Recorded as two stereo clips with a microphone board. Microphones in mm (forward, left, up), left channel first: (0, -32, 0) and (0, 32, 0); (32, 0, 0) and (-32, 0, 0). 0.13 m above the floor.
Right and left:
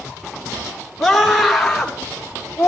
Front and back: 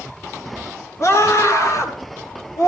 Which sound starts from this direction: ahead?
A scream, at 1.0 s.